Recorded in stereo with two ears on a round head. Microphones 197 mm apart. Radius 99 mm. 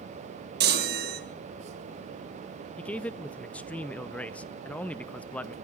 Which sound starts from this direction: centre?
A man speaking, at 2.8 s.